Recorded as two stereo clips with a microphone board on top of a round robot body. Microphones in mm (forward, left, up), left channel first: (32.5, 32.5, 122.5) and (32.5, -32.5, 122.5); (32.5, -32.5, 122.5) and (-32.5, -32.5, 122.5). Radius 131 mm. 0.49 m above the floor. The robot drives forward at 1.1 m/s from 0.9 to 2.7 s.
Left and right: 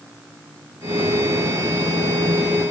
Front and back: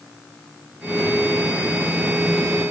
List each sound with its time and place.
Only background noise.